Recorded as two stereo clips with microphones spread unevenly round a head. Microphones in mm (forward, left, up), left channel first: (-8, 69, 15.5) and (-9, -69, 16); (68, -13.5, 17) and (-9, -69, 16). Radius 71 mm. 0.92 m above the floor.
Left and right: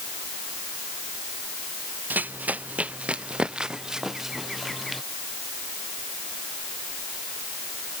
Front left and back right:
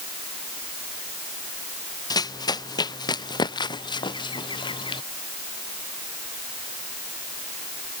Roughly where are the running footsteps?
Ahead.